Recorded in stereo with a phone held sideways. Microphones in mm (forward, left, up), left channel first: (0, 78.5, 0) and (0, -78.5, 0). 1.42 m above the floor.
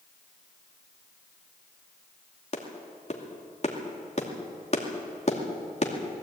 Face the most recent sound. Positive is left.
turn(degrees=40)  # may be behind; listen again after turning